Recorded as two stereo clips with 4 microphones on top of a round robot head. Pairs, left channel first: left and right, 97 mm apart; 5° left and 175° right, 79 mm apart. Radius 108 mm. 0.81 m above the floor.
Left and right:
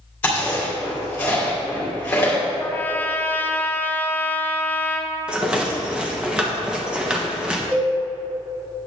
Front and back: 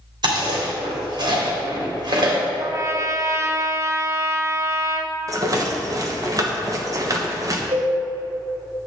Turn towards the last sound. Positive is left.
turn(degrees=-165)